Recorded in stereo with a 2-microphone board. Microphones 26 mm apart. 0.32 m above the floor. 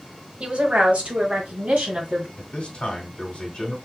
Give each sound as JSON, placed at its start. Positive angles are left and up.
{"t": 0.4, "sound": "a woman speaking", "side_deg": -50, "distance_m": 1.2}
{"t": 2.4, "sound": "a man speaking", "side_deg": 40, "distance_m": 1.5}